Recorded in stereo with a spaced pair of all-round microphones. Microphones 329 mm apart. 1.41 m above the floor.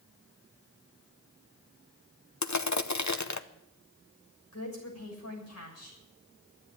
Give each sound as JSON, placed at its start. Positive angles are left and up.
{"t": 2.4, "sound": "crushing", "side_deg": 60, "distance_m": 0.8}
{"t": 4.5, "sound": "a woman speaking", "side_deg": 50, "distance_m": 7.0}